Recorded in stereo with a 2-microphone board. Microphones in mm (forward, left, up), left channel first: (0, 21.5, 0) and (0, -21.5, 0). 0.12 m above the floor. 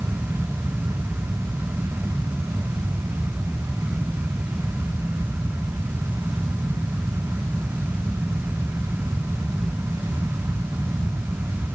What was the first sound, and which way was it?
Only background noise.